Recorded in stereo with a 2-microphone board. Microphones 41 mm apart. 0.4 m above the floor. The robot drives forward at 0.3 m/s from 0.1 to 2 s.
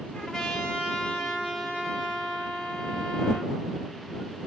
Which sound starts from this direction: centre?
A trumpet, at 0.1 s.